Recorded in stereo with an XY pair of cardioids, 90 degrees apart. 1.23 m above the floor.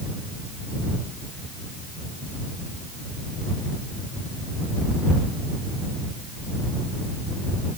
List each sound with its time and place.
Only background noise.